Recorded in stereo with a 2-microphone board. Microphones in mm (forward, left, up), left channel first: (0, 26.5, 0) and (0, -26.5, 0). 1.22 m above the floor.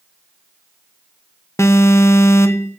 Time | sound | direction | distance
1.6 | an alarm | 55° left (ahead or behind) | 1.2 m